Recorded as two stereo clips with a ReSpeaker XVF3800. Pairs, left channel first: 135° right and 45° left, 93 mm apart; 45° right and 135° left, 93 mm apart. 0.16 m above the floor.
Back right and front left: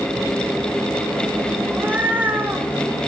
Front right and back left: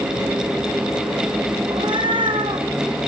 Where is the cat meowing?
115° left, 3 m.